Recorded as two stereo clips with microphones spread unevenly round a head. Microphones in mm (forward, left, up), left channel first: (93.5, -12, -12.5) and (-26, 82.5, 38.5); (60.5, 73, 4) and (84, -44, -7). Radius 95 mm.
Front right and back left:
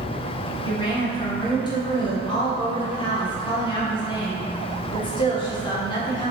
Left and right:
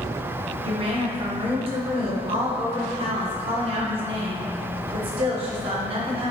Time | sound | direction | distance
0.6 | a woman speaking | 70° right | 1.0 m